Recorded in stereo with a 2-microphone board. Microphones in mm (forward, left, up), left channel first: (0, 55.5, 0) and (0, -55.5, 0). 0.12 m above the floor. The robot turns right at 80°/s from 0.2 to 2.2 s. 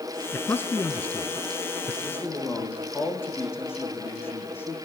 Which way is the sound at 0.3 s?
20° left (ahead or behind).